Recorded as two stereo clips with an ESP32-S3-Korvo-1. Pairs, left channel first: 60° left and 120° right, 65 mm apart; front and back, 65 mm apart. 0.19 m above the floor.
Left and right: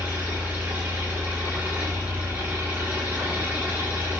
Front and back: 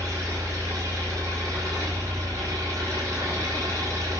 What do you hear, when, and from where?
0.0 s an engine running: 175° left, 10 m